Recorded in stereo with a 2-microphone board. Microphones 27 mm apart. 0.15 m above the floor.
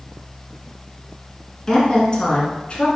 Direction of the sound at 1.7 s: 25° left (ahead or behind).